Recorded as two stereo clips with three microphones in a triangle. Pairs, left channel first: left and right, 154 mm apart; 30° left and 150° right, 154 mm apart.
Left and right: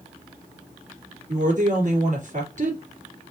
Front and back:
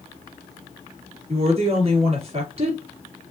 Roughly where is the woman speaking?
Right.